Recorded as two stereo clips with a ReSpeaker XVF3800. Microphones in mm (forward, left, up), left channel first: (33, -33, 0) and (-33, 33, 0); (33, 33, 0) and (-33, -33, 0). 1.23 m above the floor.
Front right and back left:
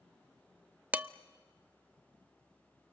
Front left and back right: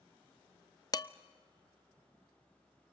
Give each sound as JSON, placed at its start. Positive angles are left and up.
{"t": 0.9, "sound": "dishes clattering", "azimuth_deg": 65, "distance_m": 0.6}